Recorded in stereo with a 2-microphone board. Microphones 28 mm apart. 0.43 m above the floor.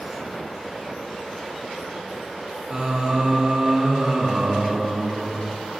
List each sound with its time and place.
2.7 s singing: 30° right (ahead or behind), 3.5 m